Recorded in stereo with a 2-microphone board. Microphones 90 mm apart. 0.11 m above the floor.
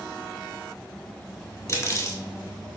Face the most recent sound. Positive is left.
turn(degrees=35)  # may be behind; listen again after turning